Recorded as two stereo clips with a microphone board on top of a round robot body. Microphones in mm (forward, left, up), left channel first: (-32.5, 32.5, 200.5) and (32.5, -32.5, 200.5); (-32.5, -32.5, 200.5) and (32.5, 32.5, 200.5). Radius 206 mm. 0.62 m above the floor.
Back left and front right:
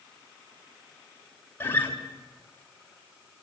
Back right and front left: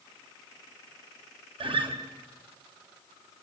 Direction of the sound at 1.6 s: 70° left.